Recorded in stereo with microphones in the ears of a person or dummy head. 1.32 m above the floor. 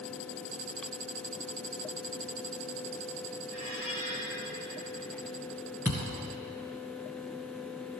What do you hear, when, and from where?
3.5 s a squeak: 55° right (ahead or behind), 3.5 m
5.8 s a thud: 10° right (ahead or behind), 1.7 m